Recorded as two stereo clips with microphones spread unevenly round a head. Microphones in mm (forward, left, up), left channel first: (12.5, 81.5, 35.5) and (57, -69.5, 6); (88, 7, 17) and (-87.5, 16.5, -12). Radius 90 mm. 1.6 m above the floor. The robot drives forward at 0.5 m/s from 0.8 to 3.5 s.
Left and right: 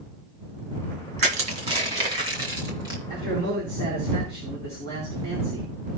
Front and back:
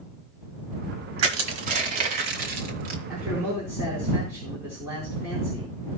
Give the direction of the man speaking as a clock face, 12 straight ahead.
3 o'clock.